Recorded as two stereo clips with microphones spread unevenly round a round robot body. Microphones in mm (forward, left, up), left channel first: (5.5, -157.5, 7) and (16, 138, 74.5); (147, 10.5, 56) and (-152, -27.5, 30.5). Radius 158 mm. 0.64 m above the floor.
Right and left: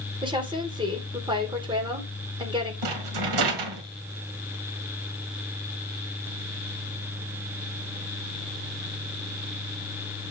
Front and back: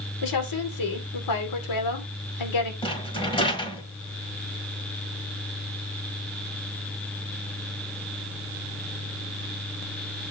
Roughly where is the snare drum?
No snare drum in this recording.